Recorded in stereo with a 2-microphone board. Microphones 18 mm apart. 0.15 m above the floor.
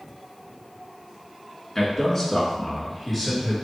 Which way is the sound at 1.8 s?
35° left (ahead or behind).